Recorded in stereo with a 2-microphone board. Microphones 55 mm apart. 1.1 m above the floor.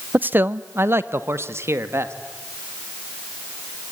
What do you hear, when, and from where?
0.1 s a man speaking: 35° right (ahead or behind), 0.7 m; by 2.1 s 55° right (ahead or behind), 2 m